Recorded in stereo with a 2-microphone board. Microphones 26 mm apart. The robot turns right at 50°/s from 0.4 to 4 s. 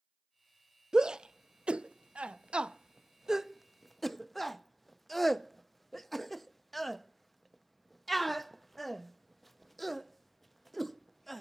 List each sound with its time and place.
0.9 s a shout: 25° right (ahead or behind), 0.5 m; by 11.4 s 5° left (ahead or behind), 0.5 m